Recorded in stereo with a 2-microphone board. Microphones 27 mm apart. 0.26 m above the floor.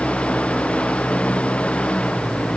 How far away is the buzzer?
I don't hear a buzzer.